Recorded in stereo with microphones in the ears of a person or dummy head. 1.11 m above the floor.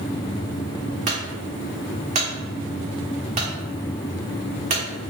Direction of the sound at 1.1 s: 35° right (ahead or behind).